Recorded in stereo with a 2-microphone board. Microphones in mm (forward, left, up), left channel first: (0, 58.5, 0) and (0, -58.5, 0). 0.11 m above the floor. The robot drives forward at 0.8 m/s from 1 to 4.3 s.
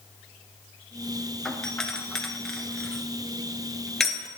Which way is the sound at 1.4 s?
5° left (ahead or behind).